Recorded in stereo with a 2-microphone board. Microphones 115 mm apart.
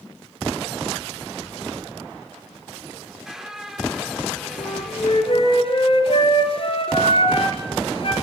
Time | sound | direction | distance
3.0 | a squeak | 5° right (ahead or behind) | 2.5 m
4.6 | a flute | 55° left (ahead or behind) | 4 m